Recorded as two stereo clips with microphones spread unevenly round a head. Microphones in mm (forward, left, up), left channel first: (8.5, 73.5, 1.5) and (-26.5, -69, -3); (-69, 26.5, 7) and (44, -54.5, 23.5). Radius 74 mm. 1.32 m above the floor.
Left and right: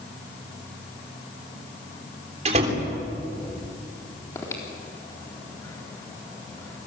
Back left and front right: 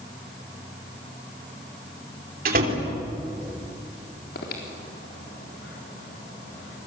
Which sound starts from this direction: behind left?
Breathing, at 4.3 s.